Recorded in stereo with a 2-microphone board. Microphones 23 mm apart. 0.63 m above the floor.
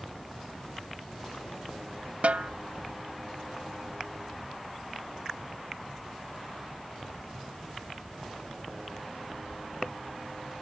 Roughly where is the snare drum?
Right.